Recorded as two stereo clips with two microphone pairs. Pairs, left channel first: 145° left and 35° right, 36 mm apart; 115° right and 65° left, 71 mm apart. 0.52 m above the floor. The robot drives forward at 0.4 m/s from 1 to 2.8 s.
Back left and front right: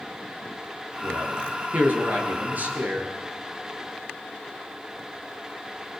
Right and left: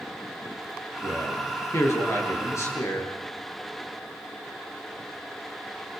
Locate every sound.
1.0 s a man speaking: 65° right, 9.5 m; by 3.1 s 70° right, 9.5 m